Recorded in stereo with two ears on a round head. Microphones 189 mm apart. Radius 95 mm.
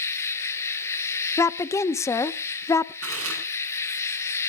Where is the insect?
15° left (ahead or behind), 1.7 m.